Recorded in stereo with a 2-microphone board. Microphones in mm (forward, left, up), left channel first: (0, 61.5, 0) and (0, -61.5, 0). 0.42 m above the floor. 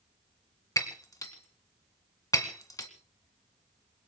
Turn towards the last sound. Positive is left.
turn(degrees=30)  # may be behind; listen again after turning